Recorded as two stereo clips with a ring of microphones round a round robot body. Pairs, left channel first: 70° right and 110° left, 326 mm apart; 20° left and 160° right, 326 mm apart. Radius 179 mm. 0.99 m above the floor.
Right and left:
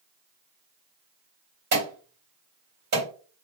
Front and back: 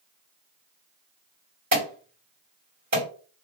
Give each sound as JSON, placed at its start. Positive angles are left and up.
{"t": 1.7, "sound": "an alarm", "azimuth_deg": 150, "distance_m": 1.9}